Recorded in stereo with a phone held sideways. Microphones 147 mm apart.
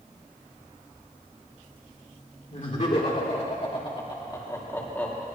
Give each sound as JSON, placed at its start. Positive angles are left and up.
{"t": 2.5, "sound": "laughter", "side_deg": 55, "distance_m": 4.0}